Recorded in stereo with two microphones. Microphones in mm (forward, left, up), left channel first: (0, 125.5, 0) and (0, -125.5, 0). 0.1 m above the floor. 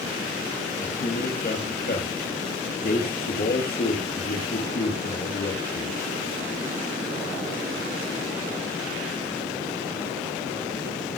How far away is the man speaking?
About 2.5 m.